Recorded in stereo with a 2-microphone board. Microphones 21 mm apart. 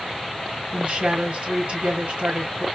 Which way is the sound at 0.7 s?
70° right (ahead or behind).